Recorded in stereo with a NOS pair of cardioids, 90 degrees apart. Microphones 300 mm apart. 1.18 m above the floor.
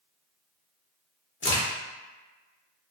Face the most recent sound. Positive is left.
turn(degrees=40)